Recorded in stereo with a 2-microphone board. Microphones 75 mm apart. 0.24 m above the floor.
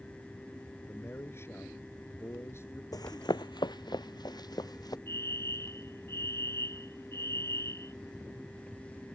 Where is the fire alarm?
40° left (ahead or behind).